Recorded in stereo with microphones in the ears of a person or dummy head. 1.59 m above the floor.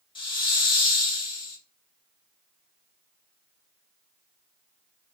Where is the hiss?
25° left (ahead or behind), 0.6 m.